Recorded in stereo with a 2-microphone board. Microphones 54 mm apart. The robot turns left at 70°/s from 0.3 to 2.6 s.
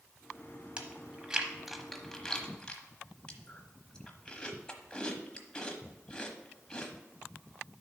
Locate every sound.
0.8 s chewing: 20° right (ahead or behind), 1.0 m; by 6.9 s 15° left (ahead or behind), 1.0 m